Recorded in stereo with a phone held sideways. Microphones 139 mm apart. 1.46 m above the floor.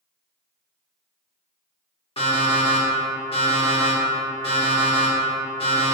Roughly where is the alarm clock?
Left.